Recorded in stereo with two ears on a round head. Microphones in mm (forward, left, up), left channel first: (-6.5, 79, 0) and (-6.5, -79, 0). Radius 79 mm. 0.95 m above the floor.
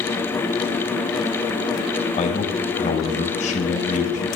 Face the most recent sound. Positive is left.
turn(degrees=40)  # may be behind; listen again after turning